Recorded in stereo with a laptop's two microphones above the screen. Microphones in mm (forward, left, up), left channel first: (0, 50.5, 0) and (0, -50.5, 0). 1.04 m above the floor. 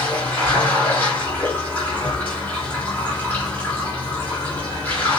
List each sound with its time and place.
0.0 s running water: 15° left (ahead or behind), 4 m